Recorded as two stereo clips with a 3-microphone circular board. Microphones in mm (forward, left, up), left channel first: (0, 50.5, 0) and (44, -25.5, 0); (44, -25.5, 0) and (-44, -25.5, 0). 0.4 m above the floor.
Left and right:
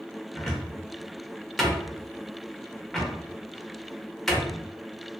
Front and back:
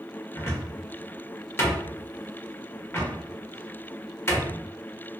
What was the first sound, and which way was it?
A cupboard door, 40° left.